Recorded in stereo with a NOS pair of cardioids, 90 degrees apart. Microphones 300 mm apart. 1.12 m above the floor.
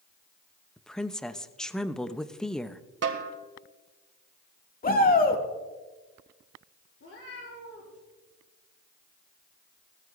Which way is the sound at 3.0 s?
50° right.